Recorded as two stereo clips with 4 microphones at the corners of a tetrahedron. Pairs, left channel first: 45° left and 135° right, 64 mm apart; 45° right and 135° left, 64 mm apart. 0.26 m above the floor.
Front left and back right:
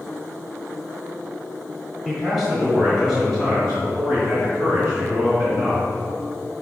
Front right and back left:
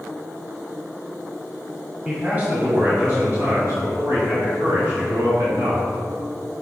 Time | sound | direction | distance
2.0 | a man speaking | 145° left | 1.4 m